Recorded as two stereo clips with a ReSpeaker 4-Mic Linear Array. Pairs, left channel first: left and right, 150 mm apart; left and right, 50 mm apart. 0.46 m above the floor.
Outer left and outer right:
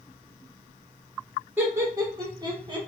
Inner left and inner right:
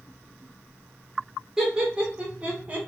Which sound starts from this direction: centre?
Laughter, at 1.6 s.